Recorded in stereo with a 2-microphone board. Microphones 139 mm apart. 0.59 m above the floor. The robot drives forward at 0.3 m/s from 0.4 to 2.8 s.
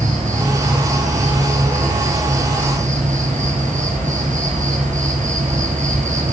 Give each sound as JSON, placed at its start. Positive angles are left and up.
{"t": 0.0, "sound": "an insect", "side_deg": -70, "distance_m": 6.0}